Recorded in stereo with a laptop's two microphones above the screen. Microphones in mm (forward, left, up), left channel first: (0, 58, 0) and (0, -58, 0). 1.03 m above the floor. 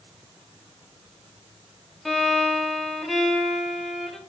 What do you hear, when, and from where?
2.0 s a violin: centre (ahead or behind), 1.1 m